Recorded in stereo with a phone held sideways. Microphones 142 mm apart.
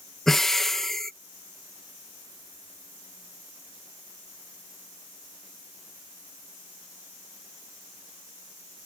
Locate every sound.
0.3 s breathing: centre (ahead or behind)